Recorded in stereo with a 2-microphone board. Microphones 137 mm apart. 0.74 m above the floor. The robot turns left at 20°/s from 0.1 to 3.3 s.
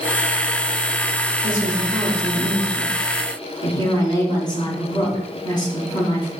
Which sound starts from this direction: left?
A woman speaking, at 1.4 s.